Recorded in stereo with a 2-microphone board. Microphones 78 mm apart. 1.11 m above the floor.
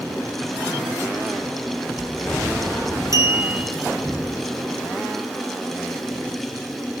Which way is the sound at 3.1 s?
45° right (ahead or behind).